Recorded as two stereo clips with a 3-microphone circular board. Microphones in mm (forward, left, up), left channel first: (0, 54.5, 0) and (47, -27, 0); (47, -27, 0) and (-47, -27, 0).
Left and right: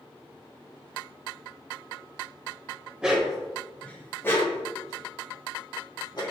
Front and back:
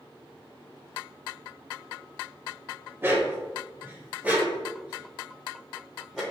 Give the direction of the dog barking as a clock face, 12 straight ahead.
4 o'clock.